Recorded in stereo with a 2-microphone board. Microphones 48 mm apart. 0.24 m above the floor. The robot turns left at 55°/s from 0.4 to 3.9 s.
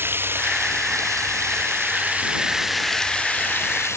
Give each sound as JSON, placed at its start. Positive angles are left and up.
{"t": 0.0, "sound": "running water", "azimuth_deg": -50}